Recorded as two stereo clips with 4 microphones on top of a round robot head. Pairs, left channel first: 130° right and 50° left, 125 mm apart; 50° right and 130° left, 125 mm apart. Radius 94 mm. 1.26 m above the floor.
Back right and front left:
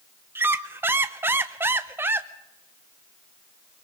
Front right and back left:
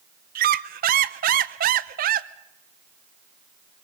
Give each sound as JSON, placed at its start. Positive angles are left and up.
{"t": 0.3, "sound": "a squeak", "azimuth_deg": 125, "distance_m": 0.6}